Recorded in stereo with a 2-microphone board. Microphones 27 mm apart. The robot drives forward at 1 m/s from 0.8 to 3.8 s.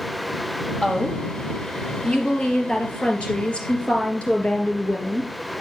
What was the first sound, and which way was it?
A woman speaking, 30° left (ahead or behind).